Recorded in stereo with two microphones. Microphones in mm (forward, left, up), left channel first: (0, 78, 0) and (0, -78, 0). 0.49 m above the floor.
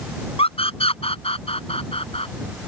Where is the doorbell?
No doorbell in this recording.